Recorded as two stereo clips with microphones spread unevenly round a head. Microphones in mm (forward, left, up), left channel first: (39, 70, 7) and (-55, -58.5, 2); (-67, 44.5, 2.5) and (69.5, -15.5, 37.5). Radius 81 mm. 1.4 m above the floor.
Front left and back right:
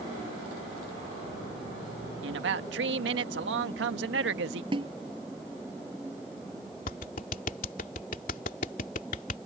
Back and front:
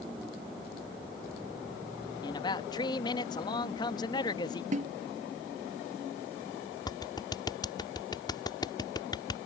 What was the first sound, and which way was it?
A man speaking, 135° right.